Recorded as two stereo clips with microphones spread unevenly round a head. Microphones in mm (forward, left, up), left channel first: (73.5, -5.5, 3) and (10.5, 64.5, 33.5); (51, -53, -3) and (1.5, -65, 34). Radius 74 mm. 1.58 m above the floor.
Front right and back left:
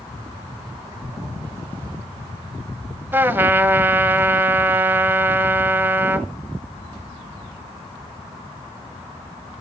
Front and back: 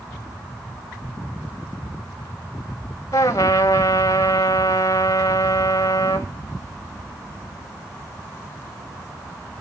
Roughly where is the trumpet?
Left.